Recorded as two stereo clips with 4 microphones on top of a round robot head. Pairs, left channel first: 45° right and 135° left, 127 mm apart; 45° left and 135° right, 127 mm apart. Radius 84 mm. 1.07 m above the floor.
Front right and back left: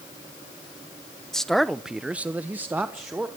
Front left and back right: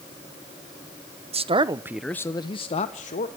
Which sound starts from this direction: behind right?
A man speaking, at 1.3 s.